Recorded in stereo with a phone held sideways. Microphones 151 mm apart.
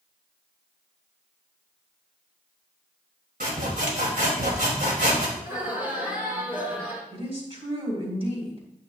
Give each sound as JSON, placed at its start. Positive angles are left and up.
{"t": 3.4, "sound": "sawing", "side_deg": -70, "distance_m": 2.5}
{"t": 5.4, "sound": "laughter", "side_deg": -10, "distance_m": 4.5}
{"t": 7.1, "sound": "a woman speaking", "side_deg": -40, "distance_m": 3.0}